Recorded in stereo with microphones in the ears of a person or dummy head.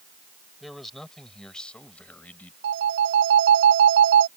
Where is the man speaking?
Centre (ahead or behind); by 2.5 s 10° left (ahead or behind).